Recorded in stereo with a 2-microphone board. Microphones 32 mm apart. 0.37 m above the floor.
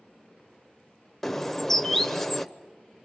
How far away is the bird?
About 0.8 m.